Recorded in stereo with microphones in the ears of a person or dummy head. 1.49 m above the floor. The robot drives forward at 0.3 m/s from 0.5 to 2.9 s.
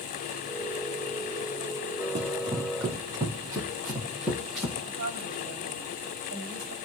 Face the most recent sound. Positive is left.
turn(degrees=-55)  # may be behind; listen again after turning